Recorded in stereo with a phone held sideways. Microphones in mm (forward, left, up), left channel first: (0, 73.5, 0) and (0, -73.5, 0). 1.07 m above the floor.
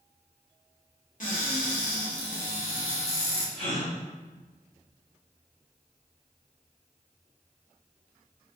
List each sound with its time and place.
1.2 s a cupboard door: 65° left (ahead or behind), 0.9 m
3.5 s a gasp: 65° left (ahead or behind), 1.7 m